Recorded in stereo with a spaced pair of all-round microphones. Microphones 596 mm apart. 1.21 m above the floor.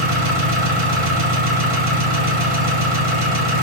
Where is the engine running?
55° right (ahead or behind), 1.1 m.